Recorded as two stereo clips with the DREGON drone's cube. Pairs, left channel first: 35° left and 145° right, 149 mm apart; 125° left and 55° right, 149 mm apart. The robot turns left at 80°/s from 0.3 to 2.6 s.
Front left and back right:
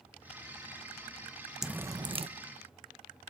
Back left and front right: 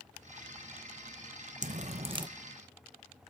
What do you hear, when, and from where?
1.6 s dripping: 60° right, 0.6 m; by 2.3 s 110° right, 0.6 m